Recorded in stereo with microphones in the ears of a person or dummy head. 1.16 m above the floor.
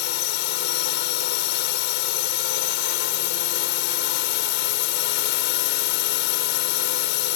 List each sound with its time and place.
0.0 s a drone: 60° left (ahead or behind)